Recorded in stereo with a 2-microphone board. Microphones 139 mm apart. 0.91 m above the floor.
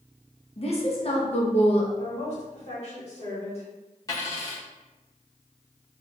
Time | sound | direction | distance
0.6 | a woman speaking | 45° left (ahead or behind) | 0.6 m
2.0 | a woman speaking | 50° left (ahead or behind) | 1.4 m
4.1 | a dropped coin | 25° left (ahead or behind) | 0.9 m